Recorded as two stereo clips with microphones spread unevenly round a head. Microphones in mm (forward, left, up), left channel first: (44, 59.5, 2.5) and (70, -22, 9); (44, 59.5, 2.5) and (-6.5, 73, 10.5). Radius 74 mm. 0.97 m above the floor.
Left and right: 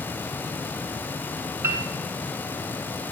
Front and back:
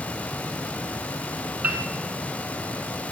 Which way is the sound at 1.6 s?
135° right.